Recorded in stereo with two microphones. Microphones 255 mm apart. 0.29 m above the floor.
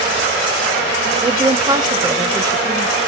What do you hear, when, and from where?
1.2 s a woman speaking: 15° right (ahead or behind), 0.9 m